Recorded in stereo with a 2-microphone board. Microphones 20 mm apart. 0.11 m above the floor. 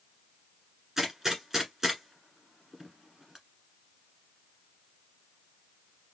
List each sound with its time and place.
1.0 s a gunshot: 20° right (ahead or behind), 1.5 m